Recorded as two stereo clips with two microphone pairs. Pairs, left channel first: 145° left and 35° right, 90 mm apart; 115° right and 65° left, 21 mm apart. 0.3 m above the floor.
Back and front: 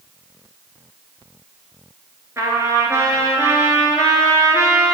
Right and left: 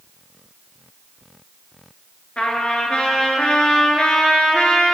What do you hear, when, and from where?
2.4 s a trumpet: 85° right, 1.0 m